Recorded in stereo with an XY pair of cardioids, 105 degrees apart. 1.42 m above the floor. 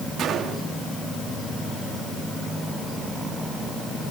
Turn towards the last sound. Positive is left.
turn(degrees=-65)